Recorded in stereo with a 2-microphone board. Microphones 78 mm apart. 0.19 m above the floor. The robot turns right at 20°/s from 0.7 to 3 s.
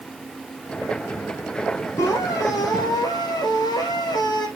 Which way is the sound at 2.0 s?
35° left (ahead or behind).